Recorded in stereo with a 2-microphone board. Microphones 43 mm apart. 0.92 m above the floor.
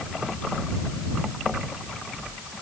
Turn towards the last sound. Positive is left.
No sound to turn to.